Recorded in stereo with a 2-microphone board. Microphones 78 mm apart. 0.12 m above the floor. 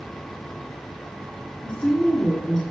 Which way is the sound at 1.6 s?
10° left (ahead or behind).